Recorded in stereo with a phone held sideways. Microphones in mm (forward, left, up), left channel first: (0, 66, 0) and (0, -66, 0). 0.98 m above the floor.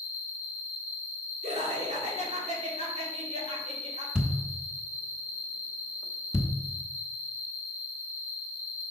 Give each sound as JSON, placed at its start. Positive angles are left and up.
{"t": 0.0, "sound": "an insect", "side_deg": -15, "distance_m": 2.5}
{"t": 1.4, "sound": "laughter", "side_deg": -55, "distance_m": 2.5}
{"t": 4.2, "sound": "a thud", "side_deg": -5, "distance_m": 0.8}